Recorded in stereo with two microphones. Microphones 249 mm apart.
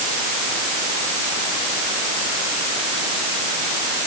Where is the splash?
I don't hear a splash.